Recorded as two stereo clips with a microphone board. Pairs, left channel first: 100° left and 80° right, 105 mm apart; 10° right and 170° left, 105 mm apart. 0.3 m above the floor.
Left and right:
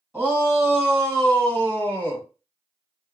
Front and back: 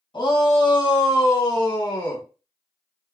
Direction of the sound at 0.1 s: Straight ahead.